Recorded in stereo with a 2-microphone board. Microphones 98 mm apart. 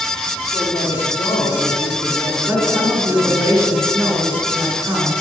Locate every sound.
0.5 s a woman speaking: 60° left (ahead or behind), 2.5 m
2.5 s a woman speaking: 25° right (ahead or behind), 3.5 m